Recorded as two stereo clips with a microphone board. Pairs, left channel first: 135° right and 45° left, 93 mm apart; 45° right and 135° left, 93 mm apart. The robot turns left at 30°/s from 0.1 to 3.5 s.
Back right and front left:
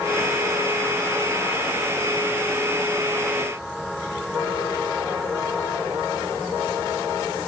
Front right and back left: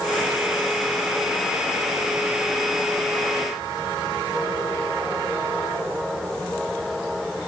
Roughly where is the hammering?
No hammering in this recording.